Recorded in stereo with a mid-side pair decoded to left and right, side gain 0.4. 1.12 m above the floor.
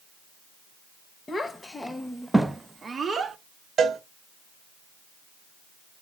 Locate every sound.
1.3 s a child speaking: 30° left, 1.0 m; by 3.4 s 50° right, 0.9 m
3.8 s a cowbell: 55° right, 1.2 m